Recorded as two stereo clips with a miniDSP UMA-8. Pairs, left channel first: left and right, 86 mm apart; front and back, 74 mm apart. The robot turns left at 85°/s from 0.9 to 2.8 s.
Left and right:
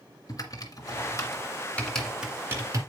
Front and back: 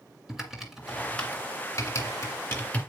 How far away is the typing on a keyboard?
About 2 m.